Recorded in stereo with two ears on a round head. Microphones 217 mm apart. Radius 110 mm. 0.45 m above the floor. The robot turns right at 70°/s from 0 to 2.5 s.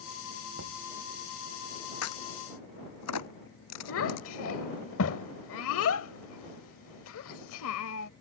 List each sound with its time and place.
0.6 s knocking: 60° right (ahead or behind); by 0.8 s 75° right (ahead or behind)
2.0 s a crack: 65° left (ahead or behind); by 4.3 s 85° left
3.9 s a child speaking: 60° left (ahead or behind)